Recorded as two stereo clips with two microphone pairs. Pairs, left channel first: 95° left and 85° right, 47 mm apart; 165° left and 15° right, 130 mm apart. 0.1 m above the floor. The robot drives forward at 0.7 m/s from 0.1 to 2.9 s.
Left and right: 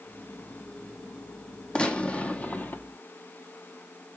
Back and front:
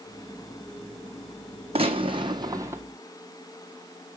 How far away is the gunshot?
About 1.2 m.